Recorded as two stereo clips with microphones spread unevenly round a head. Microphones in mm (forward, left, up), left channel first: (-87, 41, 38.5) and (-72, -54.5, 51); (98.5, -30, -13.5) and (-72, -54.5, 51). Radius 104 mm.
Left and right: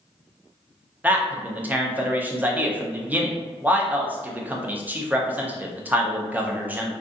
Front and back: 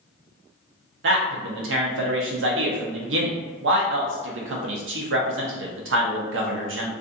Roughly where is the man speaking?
Behind right.